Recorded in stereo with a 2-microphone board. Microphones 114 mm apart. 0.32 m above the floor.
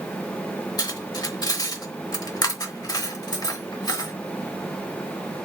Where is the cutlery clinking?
35° left (ahead or behind), 0.8 m.